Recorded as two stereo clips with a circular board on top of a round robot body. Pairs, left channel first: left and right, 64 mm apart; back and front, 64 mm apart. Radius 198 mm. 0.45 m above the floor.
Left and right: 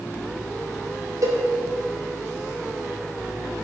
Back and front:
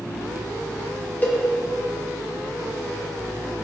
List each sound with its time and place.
1.2 s a cowbell: 115° right, 3 m